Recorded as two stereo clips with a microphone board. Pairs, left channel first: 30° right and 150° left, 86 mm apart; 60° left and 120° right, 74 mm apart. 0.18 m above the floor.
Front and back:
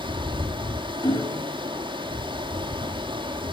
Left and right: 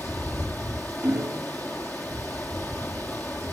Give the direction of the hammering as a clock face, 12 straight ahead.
2 o'clock.